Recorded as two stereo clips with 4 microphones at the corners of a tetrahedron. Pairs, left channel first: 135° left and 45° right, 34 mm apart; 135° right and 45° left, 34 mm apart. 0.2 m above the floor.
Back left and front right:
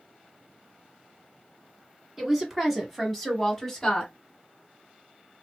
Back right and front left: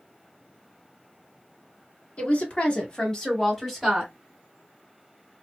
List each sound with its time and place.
2.2 s a woman speaking: 125° right, 1.6 m; by 4.1 s 125° left, 1.2 m